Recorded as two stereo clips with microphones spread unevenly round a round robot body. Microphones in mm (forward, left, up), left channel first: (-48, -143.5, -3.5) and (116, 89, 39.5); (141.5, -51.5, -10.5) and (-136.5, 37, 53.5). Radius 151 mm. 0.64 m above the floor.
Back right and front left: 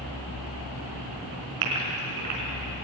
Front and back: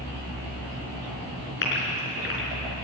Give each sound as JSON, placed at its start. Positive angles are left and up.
{"t": 1.6, "sound": "a gasp", "azimuth_deg": 40, "distance_m": 4.5}